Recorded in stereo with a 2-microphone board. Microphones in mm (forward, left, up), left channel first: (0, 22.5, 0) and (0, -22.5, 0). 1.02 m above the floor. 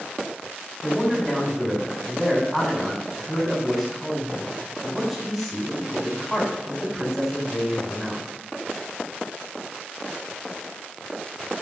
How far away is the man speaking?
About 3.5 m.